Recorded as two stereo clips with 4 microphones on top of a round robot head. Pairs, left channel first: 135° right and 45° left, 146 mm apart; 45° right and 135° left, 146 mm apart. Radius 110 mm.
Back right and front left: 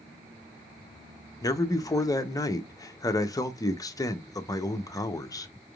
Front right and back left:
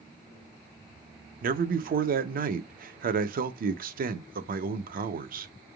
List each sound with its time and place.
1.4 s a man speaking: 160° left, 0.8 m